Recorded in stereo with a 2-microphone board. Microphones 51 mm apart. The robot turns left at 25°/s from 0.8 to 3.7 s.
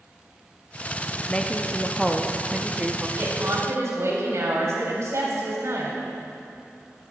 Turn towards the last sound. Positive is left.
turn(degrees=-65)  # may be behind; listen again after turning